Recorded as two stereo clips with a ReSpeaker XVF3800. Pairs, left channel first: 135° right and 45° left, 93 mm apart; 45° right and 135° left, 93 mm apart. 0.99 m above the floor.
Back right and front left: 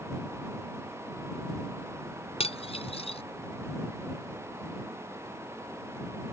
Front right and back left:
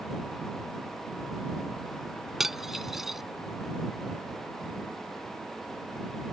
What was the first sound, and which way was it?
Cutlery clinking, 140° right.